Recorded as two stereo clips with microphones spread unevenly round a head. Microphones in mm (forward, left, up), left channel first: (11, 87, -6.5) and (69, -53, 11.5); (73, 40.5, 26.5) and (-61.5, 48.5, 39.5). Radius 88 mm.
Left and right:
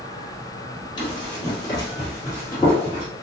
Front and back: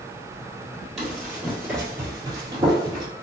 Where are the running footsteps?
105° left, 1.8 m; by 3.0 s 165° right, 2 m.